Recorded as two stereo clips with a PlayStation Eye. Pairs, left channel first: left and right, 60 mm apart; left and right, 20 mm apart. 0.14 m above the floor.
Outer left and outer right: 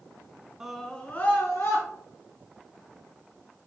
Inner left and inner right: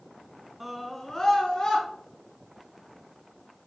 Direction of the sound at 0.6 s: 10° right (ahead or behind).